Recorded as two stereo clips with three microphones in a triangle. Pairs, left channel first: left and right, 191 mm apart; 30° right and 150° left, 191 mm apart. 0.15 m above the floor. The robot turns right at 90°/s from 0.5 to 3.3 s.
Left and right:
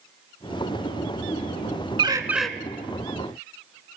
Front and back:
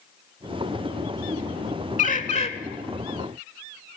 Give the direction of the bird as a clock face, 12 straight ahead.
1 o'clock.